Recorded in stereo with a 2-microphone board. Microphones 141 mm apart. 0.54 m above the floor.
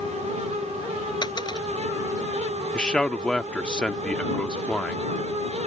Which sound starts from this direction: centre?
A man speaking, at 2.7 s.